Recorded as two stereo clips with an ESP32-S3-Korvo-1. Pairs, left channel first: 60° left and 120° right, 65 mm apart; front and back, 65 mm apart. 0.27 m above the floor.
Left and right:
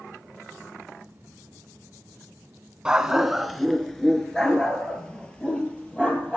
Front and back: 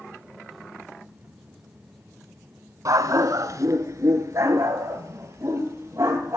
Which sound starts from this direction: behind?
A dog barking, at 2.9 s.